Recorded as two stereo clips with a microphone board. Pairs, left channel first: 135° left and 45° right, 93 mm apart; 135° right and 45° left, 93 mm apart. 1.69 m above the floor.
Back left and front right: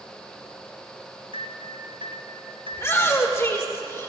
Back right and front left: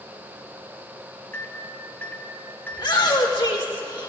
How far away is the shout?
About 1.8 m.